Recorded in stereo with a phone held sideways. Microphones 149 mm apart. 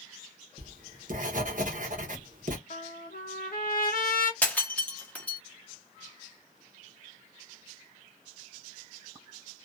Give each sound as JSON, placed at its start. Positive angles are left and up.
{"t": 0.6, "sound": "writing", "side_deg": -60, "distance_m": 0.8}
{"t": 2.7, "sound": "a trumpet", "side_deg": 75, "distance_m": 0.8}
{"t": 4.4, "sound": "breaking glass", "side_deg": 10, "distance_m": 0.8}